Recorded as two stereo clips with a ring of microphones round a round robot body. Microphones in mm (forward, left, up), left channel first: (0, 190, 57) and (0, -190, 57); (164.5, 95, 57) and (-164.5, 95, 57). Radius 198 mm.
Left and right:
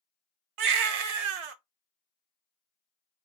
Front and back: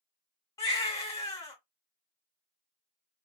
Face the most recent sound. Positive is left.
turn(degrees=-80)